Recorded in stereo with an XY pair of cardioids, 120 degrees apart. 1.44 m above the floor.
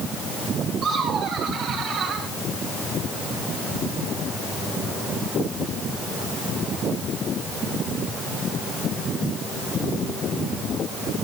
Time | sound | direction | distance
0.8 | laughter | 60° right | 7.5 m